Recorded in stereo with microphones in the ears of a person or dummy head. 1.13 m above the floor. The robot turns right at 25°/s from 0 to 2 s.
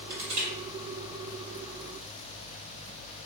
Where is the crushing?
50° right (ahead or behind), 1.6 m; by 0.5 s 40° right (ahead or behind), 1.6 m.